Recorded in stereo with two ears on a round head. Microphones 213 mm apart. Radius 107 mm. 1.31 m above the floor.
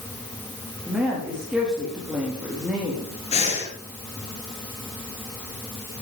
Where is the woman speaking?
5° right (ahead or behind), 3 m.